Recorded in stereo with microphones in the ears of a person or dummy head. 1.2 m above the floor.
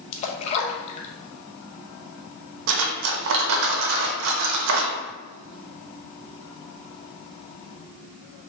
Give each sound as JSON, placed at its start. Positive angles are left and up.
{"t": 0.1, "sound": "a splash", "side_deg": 40, "distance_m": 0.6}
{"t": 2.7, "sound": "cutlery clinking", "side_deg": -65, "distance_m": 0.7}